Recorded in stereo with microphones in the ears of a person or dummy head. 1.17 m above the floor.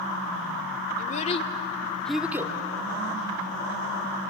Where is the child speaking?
40° left (ahead or behind), 1.7 m; by 2.5 s 20° right (ahead or behind), 1.3 m.